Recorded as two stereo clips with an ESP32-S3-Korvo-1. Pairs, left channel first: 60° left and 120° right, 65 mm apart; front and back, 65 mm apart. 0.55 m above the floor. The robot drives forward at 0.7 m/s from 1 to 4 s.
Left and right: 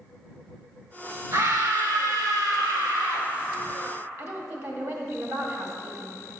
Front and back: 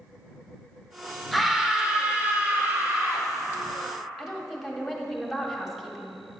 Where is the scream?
90° right, 1.5 m; by 3.3 s 135° right, 2 m.